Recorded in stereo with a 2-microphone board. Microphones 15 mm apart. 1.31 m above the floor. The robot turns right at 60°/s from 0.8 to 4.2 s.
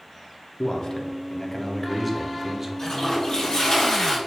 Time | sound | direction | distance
0.6 | a man speaking | 115° left | 0.6 m
2.8 | a toilet flushing | 55° left | 1.3 m